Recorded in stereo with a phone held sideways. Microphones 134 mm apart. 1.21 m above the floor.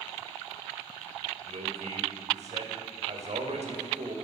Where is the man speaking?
60° right (ahead or behind), 6 m.